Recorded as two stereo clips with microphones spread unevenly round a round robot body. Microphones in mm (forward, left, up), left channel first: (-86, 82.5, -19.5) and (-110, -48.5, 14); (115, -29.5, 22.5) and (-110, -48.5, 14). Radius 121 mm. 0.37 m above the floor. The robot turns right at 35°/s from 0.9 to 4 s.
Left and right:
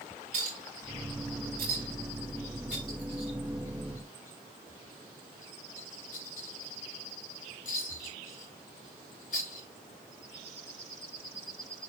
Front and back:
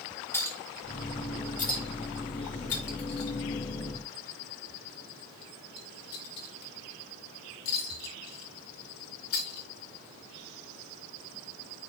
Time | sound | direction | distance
0.3 | a clink | 75° right | 4 m